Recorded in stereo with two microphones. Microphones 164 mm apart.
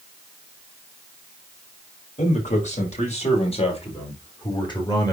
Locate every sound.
2.2 s a man speaking: 50° left (ahead or behind), 5 m; by 5.1 s 25° left (ahead or behind), 3.5 m